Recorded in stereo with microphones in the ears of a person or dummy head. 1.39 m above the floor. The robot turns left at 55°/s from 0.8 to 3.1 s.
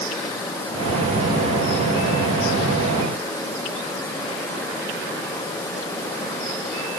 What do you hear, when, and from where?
Only background noise.